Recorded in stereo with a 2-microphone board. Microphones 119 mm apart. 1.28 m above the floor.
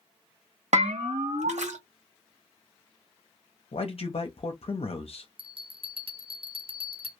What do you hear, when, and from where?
0.7 s a bell: 80° right, 0.7 m
3.7 s a man speaking: 55° left (ahead or behind), 0.6 m
5.4 s a bell: 50° right (ahead or behind), 0.7 m